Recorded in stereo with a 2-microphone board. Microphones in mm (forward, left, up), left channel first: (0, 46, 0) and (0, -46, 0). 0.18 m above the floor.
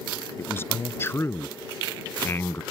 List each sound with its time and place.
0.4 s a man speaking: 25° left (ahead or behind)